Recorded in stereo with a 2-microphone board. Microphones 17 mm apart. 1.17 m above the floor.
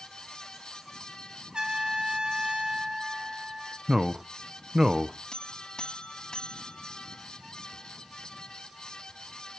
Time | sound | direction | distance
1.5 | a trumpet | 65° right (ahead or behind) | 5 m
3.9 | a man speaking | 30° right (ahead or behind) | 0.7 m
5.3 | a buzzer | 55° left (ahead or behind) | 1.6 m